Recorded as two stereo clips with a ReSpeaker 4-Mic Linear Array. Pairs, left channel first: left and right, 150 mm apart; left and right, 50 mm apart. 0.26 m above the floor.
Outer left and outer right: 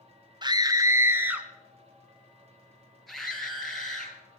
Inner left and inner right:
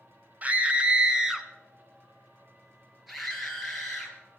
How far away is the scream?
About 1.3 m.